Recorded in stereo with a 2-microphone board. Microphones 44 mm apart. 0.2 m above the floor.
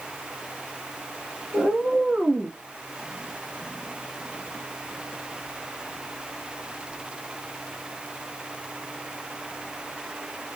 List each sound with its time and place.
1.5 s a cat meowing: 30° right (ahead or behind), 1.5 m; by 2.6 s 15° right (ahead or behind), 1.0 m